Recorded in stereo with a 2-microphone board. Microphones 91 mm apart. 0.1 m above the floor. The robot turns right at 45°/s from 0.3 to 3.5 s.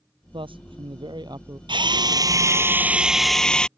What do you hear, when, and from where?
0.3 s a man speaking: 100° right; by 1.6 s 40° right
1.7 s a drill: 70° right; by 3.7 s 10° left